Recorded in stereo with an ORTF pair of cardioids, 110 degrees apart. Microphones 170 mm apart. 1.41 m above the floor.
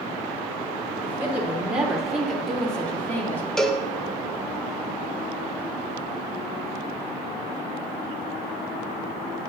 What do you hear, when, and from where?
1.0 s a woman speaking: 15° right, 3 m; by 3.5 s 15° left, 3 m
3.6 s a cowbell: straight ahead, 1.2 m